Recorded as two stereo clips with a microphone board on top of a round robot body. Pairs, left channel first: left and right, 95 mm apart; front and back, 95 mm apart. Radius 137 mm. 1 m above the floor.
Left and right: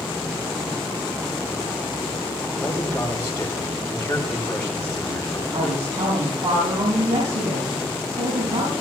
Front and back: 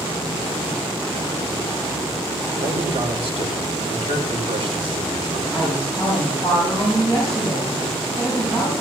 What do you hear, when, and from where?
2.6 s a man speaking: 170° left, 5 m
5.5 s a woman speaking: 100° right, 6 m